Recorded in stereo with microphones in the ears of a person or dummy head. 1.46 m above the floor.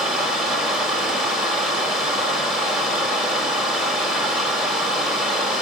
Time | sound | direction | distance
0.0 | running water | centre (ahead or behind) | 1.5 m